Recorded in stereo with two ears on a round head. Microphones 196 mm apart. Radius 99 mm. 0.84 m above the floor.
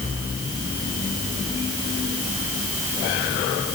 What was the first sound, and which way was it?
Only background noise.